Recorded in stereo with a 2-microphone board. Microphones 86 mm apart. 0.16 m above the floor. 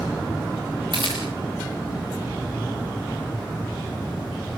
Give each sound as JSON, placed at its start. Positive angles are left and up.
{"t": 0.9, "sound": "a camera shutter", "side_deg": -65, "distance_m": 6.5}